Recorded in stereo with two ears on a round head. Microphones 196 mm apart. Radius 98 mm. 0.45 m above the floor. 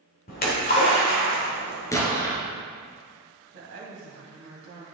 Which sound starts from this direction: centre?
An explosion, at 1.9 s.